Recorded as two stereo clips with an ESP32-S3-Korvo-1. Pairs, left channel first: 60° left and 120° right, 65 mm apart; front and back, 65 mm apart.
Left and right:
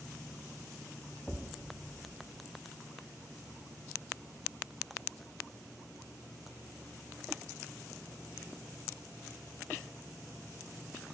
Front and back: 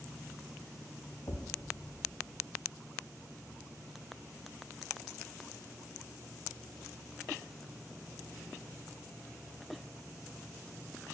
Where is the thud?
20° right, 1.8 m.